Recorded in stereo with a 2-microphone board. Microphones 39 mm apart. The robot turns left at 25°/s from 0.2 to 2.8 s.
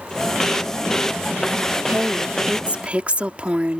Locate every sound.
1.9 s a woman speaking: 50° right (ahead or behind); by 3.8 s 30° right (ahead or behind)